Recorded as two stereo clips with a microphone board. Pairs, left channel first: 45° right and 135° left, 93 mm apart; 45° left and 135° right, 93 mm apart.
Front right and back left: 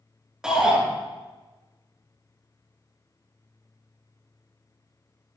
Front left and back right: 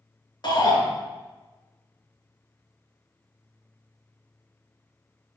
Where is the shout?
55° left, 2.5 m.